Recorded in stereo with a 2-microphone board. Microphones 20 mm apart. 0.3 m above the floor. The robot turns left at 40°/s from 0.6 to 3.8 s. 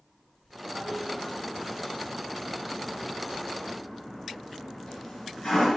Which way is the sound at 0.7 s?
25° right (ahead or behind).